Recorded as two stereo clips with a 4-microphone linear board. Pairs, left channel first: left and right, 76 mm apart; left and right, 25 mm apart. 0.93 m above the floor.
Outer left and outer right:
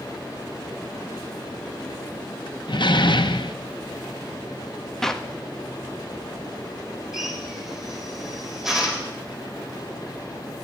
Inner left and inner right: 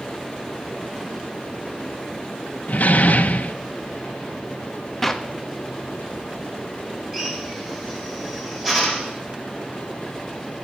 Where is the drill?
5° right (ahead or behind), 3 m.